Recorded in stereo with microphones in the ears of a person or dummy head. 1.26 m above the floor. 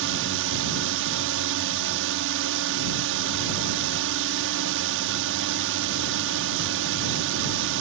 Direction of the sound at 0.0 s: 60° right (ahead or behind).